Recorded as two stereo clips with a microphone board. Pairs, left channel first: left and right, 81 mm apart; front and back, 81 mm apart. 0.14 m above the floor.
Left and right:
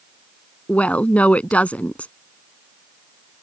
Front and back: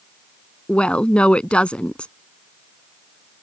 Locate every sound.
0.7 s a woman speaking: 50° left